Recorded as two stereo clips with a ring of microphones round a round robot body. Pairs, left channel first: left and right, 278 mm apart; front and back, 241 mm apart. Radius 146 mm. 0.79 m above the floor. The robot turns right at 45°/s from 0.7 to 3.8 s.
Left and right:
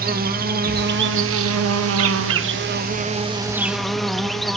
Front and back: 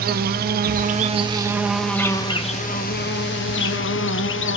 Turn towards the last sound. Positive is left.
turn(degrees=0)